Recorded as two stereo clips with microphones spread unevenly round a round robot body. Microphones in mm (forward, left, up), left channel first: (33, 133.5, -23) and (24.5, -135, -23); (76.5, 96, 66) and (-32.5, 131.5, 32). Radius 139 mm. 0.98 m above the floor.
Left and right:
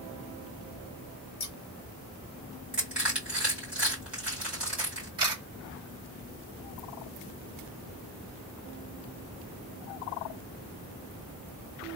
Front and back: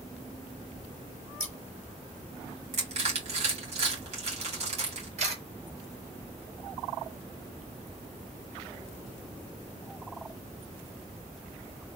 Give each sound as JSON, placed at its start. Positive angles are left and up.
{"t": 1.4, "sound": "scissors", "azimuth_deg": 70, "distance_m": 1.2}
{"t": 2.7, "sound": "crushing", "azimuth_deg": 180, "distance_m": 2.0}
{"t": 5.2, "sound": "a camera shutter", "azimuth_deg": -165, "distance_m": 2.0}